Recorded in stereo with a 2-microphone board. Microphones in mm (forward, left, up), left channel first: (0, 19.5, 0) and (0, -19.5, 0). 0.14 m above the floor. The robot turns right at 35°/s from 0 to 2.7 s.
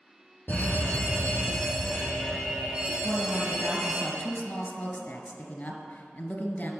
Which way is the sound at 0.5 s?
130° left.